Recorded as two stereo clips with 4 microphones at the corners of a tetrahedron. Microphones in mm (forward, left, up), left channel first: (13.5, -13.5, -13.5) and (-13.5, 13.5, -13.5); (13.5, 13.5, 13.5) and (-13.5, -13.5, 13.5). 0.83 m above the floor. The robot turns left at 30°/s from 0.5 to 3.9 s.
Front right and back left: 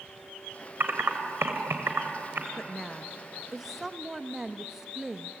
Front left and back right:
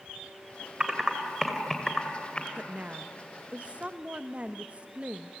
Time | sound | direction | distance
0.8 | typing on a keyboard | 155° left | 2.5 m
2.6 | a woman speaking | 115° right | 0.9 m